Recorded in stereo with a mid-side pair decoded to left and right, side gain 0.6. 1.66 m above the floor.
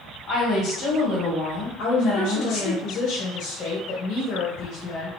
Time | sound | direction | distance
0.3 | a woman speaking | 60° left | 1.6 m
1.8 | a woman speaking | 60° left | 1.5 m